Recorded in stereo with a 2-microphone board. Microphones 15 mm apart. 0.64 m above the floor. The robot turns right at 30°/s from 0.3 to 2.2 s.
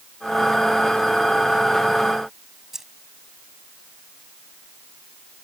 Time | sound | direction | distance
2.7 | keys jangling | 25° right (ahead or behind) | ?